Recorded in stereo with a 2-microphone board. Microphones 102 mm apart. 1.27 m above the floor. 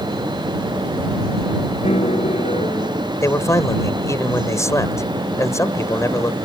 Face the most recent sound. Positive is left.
turn(degrees=30)  # may be behind; listen again after turning